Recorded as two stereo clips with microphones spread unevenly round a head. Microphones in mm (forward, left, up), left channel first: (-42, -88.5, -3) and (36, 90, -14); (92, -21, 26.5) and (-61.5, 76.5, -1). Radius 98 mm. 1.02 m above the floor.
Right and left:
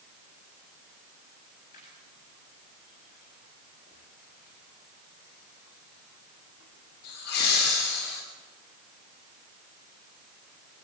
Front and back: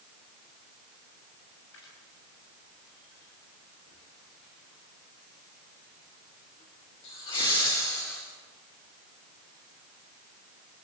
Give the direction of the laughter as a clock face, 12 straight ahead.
2 o'clock.